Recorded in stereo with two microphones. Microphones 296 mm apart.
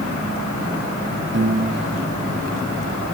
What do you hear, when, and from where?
1.3 s a piano: 40° right (ahead or behind), 2.5 m